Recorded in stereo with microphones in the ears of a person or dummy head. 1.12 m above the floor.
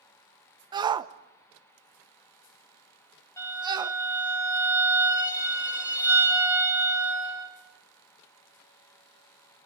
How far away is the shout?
About 0.5 m.